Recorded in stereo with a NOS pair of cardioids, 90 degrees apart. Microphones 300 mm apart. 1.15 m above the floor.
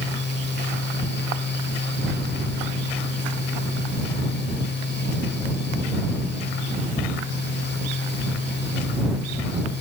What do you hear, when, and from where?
0.0 s a fan: 40° left